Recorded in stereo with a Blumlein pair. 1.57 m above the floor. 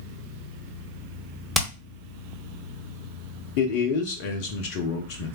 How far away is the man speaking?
About 0.8 m.